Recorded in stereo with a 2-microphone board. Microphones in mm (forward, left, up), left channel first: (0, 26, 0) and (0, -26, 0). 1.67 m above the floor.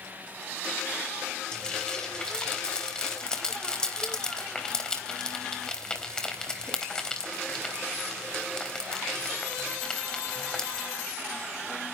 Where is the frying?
15° left (ahead or behind), 3.5 m.